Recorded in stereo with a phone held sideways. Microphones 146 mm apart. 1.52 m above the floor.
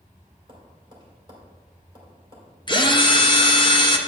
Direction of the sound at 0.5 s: 35° right (ahead or behind).